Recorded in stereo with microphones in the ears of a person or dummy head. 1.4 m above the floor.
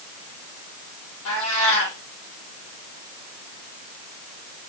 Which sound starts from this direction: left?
A cat meowing, at 1.2 s.